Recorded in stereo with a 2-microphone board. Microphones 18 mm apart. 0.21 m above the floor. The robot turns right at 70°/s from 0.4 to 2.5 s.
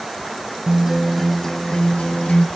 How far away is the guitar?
About 0.5 m.